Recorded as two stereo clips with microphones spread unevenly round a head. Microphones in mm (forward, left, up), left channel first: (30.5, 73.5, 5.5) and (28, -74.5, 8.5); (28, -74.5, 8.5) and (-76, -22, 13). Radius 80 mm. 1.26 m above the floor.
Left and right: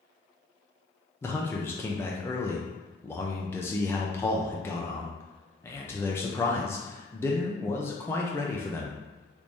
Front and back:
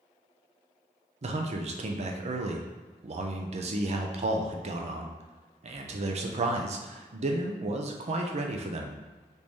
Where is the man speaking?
160° left, 0.5 m.